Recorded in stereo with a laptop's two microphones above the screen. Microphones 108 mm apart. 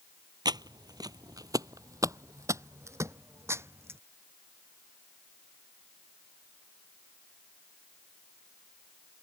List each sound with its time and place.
0.5 s footsteps: 40° right (ahead or behind); by 4.0 s 25° right (ahead or behind)